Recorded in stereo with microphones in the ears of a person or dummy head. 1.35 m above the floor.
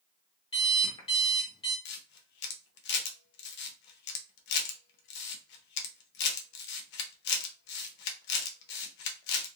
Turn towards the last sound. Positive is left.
turn(degrees=65)  # may be behind; listen again after turning